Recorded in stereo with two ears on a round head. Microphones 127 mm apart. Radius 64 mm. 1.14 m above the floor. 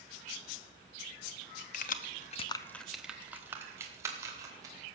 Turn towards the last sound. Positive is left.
turn(degrees=-25)  # may be behind; listen again after turning